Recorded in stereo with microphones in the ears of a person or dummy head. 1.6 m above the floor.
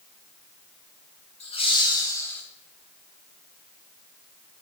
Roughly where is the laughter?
Left.